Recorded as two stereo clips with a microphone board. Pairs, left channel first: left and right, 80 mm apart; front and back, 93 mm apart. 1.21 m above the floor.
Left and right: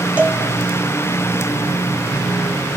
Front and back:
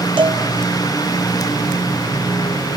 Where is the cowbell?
165° right, 2 m.